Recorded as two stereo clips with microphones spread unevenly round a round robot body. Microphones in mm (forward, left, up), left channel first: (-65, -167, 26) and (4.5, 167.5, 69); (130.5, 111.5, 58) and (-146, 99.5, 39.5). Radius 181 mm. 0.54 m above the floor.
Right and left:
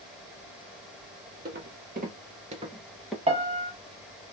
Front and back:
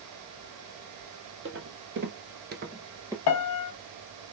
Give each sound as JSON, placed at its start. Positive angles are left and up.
{"t": 1.4, "sound": "footsteps", "azimuth_deg": 135, "distance_m": 1.2}
{"t": 3.3, "sound": "a piano", "azimuth_deg": 15, "distance_m": 0.6}